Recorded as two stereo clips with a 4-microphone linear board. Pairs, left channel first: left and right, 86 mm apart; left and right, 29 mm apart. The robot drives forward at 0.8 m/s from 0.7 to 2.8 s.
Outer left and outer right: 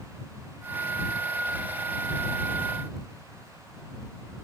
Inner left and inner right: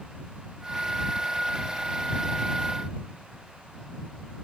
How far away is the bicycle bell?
No bicycle bell in this recording.